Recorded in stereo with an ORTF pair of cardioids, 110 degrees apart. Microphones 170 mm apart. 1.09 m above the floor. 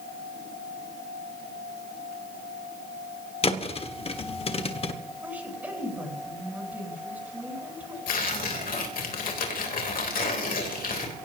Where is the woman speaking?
10° right, 9 m.